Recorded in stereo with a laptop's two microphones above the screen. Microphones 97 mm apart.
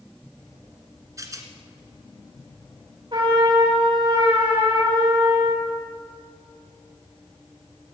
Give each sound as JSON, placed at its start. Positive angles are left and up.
{"t": 1.2, "sound": "a rattle", "side_deg": -35, "distance_m": 1.8}
{"t": 3.1, "sound": "a trumpet", "side_deg": -55, "distance_m": 4.5}